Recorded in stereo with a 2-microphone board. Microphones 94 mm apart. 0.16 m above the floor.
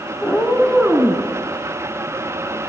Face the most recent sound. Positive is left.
turn(degrees=-20)  # may be behind; listen again after turning